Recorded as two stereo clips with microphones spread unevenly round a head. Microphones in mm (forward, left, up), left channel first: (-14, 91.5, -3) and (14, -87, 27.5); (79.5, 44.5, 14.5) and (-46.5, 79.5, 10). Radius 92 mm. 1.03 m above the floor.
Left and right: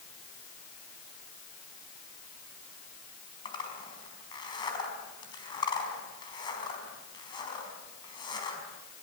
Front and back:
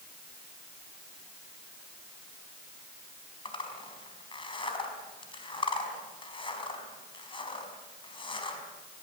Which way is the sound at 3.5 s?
30° left.